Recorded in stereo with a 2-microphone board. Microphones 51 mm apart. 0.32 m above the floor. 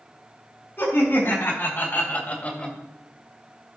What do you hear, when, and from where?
0.8 s laughter: 45° left (ahead or behind), 3.5 m; by 2.8 s 15° left (ahead or behind), 1.3 m